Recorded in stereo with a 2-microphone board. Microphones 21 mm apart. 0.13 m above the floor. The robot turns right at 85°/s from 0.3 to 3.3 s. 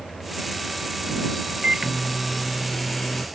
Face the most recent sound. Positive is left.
turn(degrees=95)